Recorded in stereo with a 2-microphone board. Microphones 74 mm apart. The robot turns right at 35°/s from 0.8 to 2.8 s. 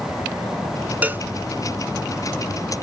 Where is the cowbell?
20° right (ahead or behind); by 1.3 s 30° right (ahead or behind).